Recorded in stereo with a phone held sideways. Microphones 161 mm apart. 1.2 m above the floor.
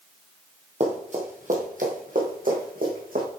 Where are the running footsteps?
45° right (ahead or behind), 2.0 m; by 3.2 s 65° right (ahead or behind), 3.5 m.